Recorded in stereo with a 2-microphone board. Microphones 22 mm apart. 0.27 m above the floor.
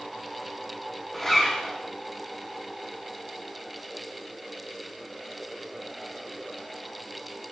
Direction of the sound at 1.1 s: 10° left (ahead or behind).